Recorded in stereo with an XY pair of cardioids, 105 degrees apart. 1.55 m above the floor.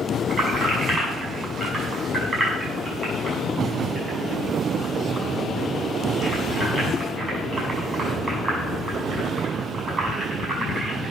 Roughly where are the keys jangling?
Ahead right.